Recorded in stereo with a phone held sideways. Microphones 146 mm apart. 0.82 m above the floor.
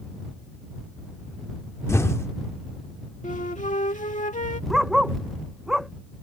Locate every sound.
1.9 s an explosion: 20° left (ahead or behind)
3.2 s a flute: 60° left (ahead or behind)
4.7 s a dog barking: centre (ahead or behind)